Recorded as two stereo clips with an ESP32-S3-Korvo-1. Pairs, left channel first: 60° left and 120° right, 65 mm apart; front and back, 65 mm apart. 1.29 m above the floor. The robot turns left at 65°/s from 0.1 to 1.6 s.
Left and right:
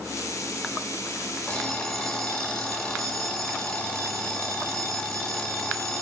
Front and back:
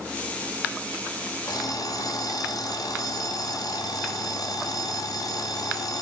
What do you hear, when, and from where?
1.5 s an alarm clock: 10° right, 3 m; by 6.0 s 20° right, 3 m